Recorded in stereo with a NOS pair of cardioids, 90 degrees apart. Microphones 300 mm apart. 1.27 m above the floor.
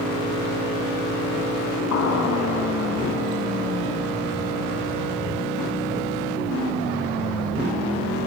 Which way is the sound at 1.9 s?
60° left.